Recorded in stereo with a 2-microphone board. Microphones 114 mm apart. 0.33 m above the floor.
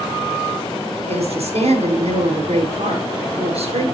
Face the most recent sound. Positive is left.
turn(degrees=-70)  # may be behind; listen again after turning